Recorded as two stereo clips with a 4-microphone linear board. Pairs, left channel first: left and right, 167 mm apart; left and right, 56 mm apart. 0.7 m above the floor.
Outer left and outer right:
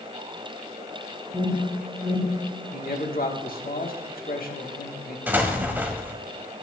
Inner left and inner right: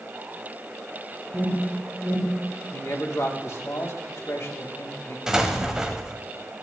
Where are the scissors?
No scissors in this recording.